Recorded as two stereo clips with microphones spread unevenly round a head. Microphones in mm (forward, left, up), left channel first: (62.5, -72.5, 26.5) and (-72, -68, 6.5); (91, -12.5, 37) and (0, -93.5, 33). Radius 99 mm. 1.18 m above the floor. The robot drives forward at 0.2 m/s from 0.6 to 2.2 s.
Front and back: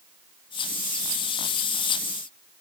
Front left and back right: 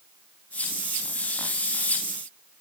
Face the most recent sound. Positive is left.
No sound to turn to.